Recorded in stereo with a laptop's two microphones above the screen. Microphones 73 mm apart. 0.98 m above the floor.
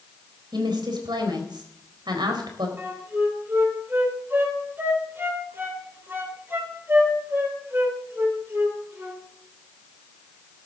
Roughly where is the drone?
I don't hear a drone.